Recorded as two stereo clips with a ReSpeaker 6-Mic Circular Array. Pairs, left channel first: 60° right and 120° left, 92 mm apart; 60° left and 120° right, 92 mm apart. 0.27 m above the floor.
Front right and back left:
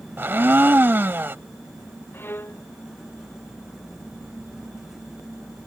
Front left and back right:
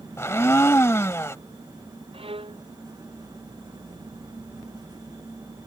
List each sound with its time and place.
0.2 s a blender: 80° left
2.1 s a violin: 125° right